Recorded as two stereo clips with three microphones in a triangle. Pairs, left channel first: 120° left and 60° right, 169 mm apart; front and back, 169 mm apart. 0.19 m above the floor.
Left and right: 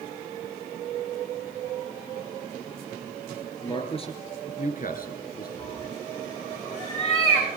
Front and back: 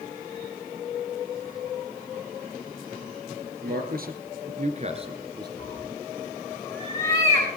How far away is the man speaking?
About 3 m.